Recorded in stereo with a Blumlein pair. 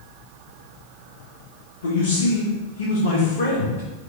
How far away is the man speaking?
About 0.8 m.